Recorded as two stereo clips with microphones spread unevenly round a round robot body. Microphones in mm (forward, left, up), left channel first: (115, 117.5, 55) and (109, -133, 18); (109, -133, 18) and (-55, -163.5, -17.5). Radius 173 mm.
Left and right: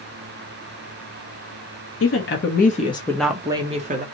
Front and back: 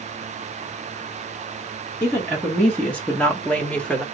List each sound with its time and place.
2.0 s a woman speaking: 105° left, 1.0 m; by 4.0 s 85° right, 0.9 m